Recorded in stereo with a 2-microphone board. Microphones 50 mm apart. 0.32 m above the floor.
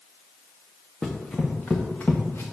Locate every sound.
1.0 s running footsteps: 5° left (ahead or behind), 1.5 m; by 2.4 s 50° left (ahead or behind), 1.8 m